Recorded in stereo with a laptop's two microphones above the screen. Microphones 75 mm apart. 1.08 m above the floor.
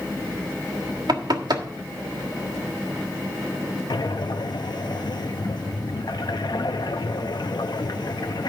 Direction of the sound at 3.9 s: 70° left (ahead or behind).